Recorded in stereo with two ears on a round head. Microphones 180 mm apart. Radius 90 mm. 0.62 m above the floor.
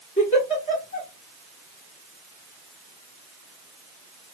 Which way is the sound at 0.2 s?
30° left (ahead or behind).